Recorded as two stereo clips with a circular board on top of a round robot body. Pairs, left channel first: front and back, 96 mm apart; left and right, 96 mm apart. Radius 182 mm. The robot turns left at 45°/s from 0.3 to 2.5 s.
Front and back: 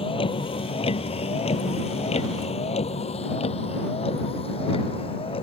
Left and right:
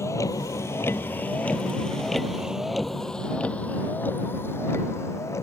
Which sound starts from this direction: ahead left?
A vehicle, at 0.0 s.